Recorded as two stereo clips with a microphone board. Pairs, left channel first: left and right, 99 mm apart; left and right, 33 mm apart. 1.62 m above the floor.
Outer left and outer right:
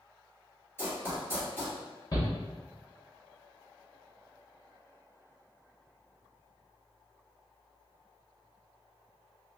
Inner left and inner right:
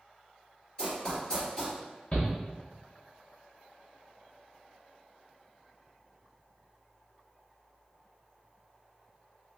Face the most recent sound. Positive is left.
turn(degrees=40)  # may be behind; listen again after turning